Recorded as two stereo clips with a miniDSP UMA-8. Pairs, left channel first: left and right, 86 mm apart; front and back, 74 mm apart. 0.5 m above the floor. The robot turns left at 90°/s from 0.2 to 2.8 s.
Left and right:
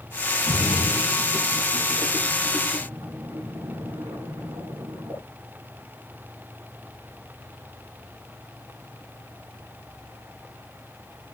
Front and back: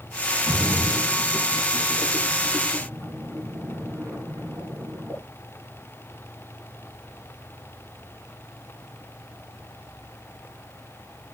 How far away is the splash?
About 5 m.